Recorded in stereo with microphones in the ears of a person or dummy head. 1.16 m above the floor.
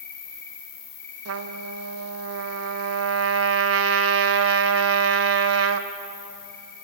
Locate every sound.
0.0 s an insect: 10° left (ahead or behind), 10 m
1.2 s a trumpet: 75° right (ahead or behind), 1.0 m